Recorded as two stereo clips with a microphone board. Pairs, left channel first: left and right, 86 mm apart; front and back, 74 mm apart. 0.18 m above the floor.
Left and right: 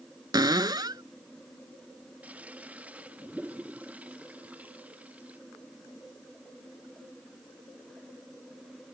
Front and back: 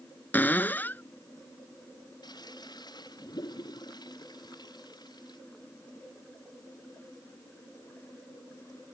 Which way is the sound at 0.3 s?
60° right.